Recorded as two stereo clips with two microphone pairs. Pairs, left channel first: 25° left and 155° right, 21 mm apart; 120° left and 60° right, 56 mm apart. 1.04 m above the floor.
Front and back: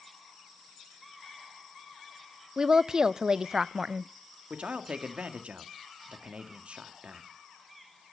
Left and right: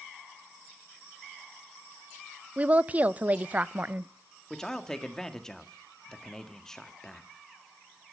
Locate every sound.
2.6 s a woman speaking: 115° right, 0.5 m
4.5 s a man speaking: 160° right, 1.7 m